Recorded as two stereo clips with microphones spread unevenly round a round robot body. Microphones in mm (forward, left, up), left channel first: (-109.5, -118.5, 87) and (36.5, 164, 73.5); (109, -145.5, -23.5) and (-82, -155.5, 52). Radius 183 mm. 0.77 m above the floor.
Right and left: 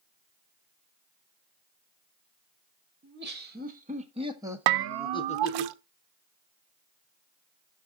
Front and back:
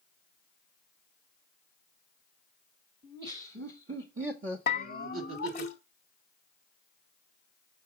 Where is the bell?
70° left, 0.5 m.